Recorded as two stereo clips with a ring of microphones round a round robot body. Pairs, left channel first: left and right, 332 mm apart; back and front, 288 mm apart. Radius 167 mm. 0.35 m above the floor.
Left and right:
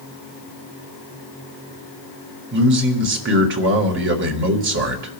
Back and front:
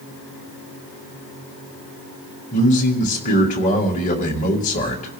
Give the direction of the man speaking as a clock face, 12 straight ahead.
4 o'clock.